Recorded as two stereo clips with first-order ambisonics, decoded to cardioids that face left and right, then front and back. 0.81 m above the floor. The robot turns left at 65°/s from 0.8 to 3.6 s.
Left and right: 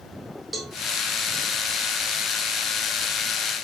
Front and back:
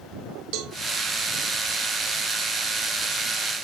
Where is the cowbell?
165° right, 1.7 m.